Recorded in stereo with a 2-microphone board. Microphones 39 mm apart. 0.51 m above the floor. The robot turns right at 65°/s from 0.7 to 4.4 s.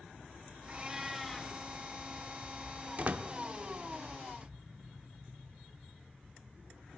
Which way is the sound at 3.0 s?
35° right (ahead or behind).